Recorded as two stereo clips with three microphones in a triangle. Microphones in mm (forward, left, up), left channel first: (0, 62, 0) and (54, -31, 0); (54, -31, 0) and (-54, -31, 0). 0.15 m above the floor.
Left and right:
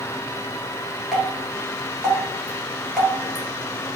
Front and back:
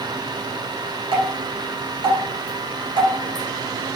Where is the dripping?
155° right, 1.3 m.